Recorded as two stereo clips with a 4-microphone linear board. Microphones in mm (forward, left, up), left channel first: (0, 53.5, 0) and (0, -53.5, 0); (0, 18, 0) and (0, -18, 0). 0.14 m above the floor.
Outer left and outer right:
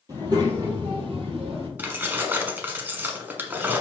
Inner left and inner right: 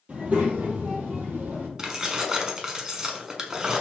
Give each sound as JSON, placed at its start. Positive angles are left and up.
{"t": 0.1, "sound": "a child speaking", "side_deg": -35, "distance_m": 2.0}
{"t": 1.8, "sound": "keys jangling", "side_deg": -20, "distance_m": 0.8}